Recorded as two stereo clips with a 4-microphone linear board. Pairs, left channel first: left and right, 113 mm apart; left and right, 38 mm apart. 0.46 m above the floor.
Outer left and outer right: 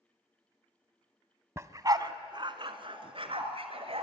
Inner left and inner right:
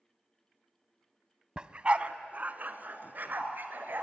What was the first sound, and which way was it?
A dog barking, 25° right (ahead or behind).